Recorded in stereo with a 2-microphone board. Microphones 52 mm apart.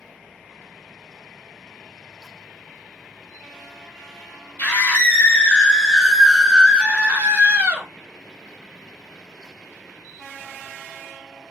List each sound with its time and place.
4.6 s a scream: 35° left (ahead or behind), 1.2 m; by 7.9 s 45° right (ahead or behind), 1.0 m